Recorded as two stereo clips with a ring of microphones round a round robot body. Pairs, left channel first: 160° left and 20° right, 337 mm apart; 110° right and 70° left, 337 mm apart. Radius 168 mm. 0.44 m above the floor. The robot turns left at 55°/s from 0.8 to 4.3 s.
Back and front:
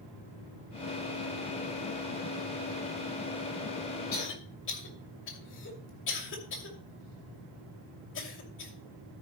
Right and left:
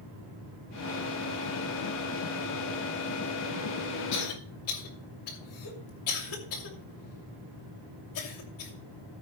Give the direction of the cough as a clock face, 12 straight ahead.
5 o'clock.